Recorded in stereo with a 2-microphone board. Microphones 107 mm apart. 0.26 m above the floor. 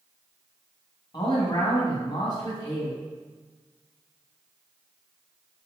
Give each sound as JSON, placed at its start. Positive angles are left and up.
{"t": 1.1, "sound": "a man speaking", "side_deg": 45, "distance_m": 1.6}